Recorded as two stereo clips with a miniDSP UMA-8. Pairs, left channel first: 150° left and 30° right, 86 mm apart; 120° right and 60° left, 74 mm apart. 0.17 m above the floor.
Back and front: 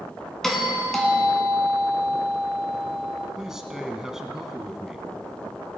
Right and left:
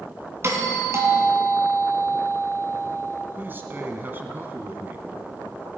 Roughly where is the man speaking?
Ahead left.